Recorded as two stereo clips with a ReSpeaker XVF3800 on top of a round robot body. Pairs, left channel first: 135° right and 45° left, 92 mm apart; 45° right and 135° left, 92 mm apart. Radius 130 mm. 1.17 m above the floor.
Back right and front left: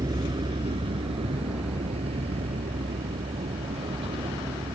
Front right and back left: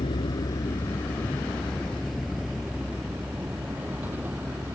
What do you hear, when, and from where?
0.0 s a vehicle: 5° right; by 4.8 s 65° left